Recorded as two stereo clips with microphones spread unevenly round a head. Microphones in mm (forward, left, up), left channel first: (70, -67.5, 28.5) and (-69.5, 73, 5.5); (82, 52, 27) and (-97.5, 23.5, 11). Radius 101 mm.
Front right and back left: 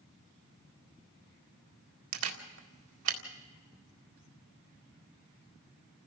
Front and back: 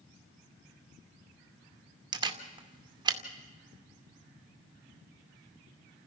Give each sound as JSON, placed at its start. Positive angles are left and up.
{"t": 2.1, "sound": "a camera shutter", "azimuth_deg": 125, "distance_m": 2.0}